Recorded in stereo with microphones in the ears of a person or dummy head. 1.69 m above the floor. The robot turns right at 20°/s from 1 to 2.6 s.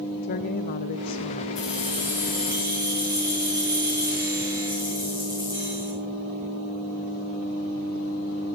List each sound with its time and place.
0.2 s a woman speaking: 50° left (ahead or behind), 0.6 m; by 1.4 s 40° left (ahead or behind), 0.6 m
1.6 s keys jangling: centre (ahead or behind), 8.5 m; by 5.9 s 20° right (ahead or behind), 8.5 m